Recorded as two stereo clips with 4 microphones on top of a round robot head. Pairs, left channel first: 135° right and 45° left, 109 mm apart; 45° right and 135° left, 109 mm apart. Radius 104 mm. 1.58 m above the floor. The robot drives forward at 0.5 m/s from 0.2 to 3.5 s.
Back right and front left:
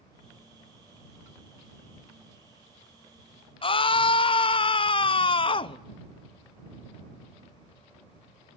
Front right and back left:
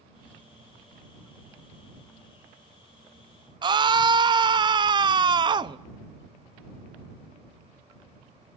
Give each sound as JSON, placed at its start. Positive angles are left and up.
{"t": 3.6, "sound": "a scream", "azimuth_deg": -175, "distance_m": 0.9}